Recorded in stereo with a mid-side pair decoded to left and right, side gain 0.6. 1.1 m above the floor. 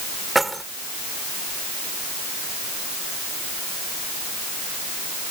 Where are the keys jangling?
10° right.